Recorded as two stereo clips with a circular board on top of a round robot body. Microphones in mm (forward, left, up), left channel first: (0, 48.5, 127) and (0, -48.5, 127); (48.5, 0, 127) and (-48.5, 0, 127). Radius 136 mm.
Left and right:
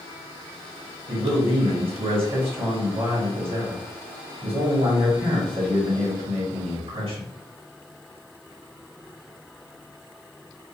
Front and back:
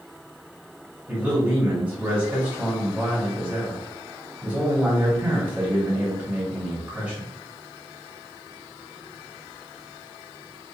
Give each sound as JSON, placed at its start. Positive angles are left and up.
{"t": 1.1, "sound": "a man speaking", "azimuth_deg": -105, "distance_m": 1.5}